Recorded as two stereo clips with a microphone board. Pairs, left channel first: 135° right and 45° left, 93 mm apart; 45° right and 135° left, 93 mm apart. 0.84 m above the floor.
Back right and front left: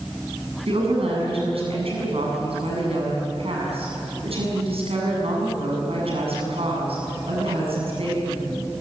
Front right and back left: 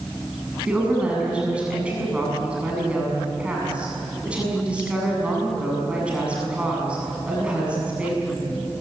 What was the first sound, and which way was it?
A woman speaking, 55° left.